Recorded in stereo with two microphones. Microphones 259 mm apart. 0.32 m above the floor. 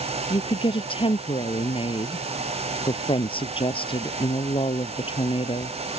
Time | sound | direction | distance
0.3 | a woman speaking | 20° left (ahead or behind) | ?